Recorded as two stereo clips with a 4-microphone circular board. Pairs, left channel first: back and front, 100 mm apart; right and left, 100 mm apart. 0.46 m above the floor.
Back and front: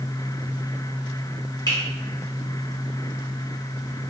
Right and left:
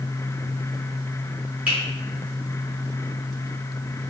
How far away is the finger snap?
About 1.1 m.